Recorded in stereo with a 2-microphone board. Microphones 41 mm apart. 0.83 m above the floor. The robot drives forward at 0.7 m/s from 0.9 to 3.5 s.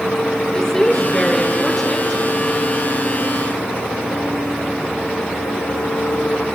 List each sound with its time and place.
0.5 s a woman speaking: 15° left (ahead or behind), 0.9 m; by 2.2 s 10° left (ahead or behind), 1.7 m